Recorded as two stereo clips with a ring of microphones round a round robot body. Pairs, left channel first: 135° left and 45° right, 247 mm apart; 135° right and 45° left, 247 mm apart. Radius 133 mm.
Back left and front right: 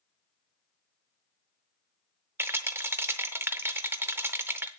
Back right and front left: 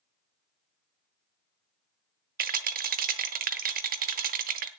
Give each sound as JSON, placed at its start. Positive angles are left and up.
{"t": 2.4, "sound": "a rattle", "azimuth_deg": 30, "distance_m": 0.5}